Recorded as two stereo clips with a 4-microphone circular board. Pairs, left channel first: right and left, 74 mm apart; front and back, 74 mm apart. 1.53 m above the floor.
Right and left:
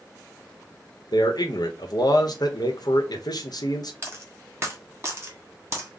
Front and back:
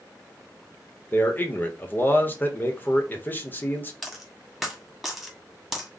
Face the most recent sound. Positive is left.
turn(degrees=90)